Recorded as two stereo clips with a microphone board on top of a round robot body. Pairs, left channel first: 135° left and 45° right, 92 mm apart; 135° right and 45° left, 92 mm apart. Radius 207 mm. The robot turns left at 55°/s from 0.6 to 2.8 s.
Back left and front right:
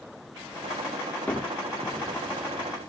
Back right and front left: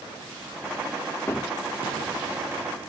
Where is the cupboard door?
170° right, 1.1 m; by 2.9 s 105° left, 1.1 m.